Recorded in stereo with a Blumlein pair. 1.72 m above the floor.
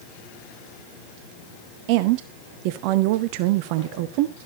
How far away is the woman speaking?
About 0.7 m.